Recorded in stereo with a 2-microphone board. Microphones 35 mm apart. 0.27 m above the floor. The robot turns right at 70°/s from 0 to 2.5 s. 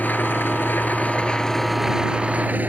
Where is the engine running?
55° left; by 2.7 s 130° right.